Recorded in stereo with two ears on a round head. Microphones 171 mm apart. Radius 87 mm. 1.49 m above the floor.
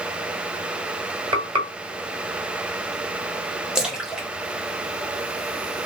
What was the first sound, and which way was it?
Frying, 30° right (ahead or behind).